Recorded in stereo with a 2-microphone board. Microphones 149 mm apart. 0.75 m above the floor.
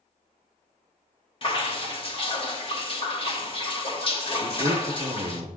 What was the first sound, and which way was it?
Dripping, 35° left (ahead or behind).